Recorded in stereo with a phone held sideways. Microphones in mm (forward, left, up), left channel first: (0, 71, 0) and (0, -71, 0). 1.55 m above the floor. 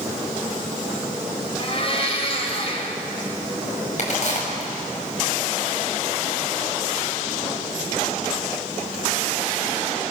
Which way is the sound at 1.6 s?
45° left (ahead or behind).